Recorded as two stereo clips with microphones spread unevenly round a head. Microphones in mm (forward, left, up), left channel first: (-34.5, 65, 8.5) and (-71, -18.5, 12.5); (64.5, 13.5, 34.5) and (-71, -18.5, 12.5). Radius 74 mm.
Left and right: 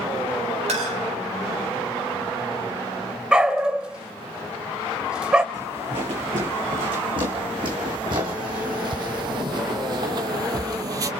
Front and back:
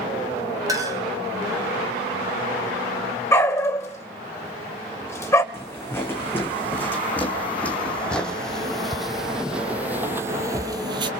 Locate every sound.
0.7 s a clink: 100° right, 3.5 m
3.3 s a dog barking: 40° right, 0.9 m
5.5 s footsteps: 55° right, 3.5 m; by 11.1 s 115° right, 1.2 m